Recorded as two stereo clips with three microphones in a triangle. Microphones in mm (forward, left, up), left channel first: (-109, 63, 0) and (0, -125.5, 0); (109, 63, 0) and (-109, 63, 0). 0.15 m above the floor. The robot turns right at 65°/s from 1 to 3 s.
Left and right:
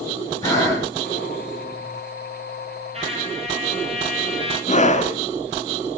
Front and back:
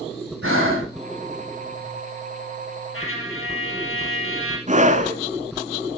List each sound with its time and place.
0.4 s breathing: 165° right, 6.5 m
2.9 s a trumpet: straight ahead, 3.5 m
4.7 s a scream: 150° left, 2.0 m